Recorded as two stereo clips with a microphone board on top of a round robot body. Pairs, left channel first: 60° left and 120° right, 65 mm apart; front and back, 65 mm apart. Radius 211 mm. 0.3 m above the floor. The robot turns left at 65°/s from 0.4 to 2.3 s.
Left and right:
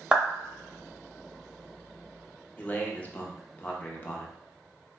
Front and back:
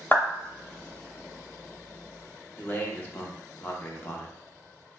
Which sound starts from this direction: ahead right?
A clap, at 0.1 s.